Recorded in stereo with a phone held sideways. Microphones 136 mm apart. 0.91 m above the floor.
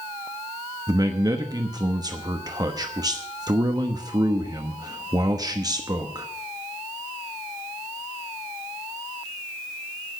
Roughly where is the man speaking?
Right.